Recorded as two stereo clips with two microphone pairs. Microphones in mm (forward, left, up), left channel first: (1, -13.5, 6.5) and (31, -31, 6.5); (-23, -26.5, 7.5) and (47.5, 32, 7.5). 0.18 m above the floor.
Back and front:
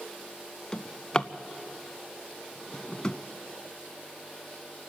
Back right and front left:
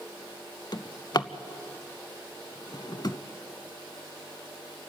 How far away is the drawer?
About 0.5 m.